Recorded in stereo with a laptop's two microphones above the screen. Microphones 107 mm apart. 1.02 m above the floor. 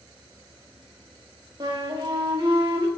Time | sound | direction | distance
1.6 | a flute | 45° right (ahead or behind) | 0.9 m